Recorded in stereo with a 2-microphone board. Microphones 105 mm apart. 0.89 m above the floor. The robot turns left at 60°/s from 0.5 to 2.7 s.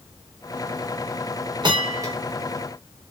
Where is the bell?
45° right (ahead or behind), 0.7 m; by 2.1 s 30° right (ahead or behind), 0.7 m.